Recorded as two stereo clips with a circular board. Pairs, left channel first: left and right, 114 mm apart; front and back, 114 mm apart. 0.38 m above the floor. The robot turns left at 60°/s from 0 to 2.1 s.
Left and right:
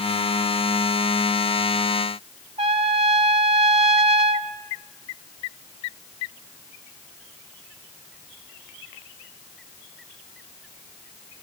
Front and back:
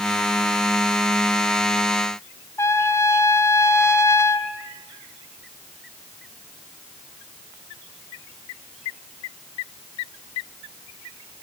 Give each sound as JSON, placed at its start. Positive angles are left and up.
{"t": 2.6, "sound": "a trumpet", "azimuth_deg": -65, "distance_m": 0.9}